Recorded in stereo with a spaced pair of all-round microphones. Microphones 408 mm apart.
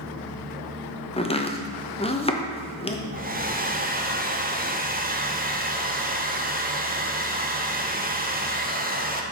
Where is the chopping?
15° left (ahead or behind), 0.7 m.